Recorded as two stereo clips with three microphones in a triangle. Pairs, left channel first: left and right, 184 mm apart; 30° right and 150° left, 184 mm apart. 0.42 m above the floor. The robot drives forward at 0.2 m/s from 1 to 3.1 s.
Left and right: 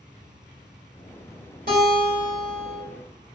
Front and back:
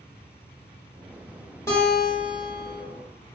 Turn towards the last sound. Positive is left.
turn(degrees=-115)